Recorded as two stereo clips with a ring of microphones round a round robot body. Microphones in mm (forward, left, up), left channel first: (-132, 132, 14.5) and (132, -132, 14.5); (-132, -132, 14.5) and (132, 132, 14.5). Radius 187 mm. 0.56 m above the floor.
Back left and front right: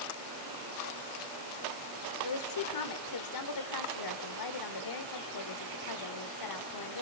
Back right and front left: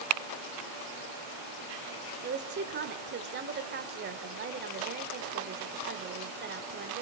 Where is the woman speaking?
105° left, 1.8 m.